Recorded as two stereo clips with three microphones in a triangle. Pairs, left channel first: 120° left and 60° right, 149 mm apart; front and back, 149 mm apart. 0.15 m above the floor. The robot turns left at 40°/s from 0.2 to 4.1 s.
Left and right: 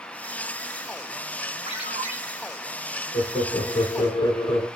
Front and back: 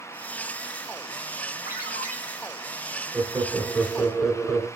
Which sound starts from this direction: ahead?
A ringtone, at 1.7 s.